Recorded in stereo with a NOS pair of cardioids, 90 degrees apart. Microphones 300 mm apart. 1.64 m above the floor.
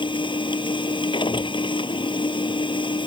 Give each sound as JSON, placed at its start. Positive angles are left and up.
{"t": 0.0, "sound": "a machine running", "azimuth_deg": 15}